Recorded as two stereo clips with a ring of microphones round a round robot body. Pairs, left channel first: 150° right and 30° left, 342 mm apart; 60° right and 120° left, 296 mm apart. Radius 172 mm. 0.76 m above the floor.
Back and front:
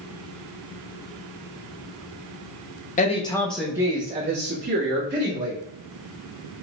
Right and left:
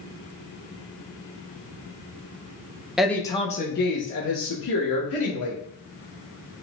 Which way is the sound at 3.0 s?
155° right.